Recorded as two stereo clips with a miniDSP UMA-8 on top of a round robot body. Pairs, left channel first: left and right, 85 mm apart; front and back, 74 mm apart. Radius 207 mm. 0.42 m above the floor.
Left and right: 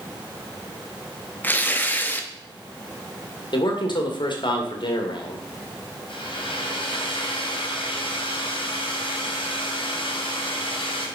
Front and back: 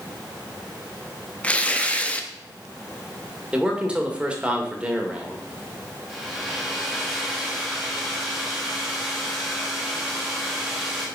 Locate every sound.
1.4 s tearing paper: 50° left, 1.4 m
3.5 s a man speaking: 105° left, 2.5 m
6.1 s a hair dryer: 90° left, 3 m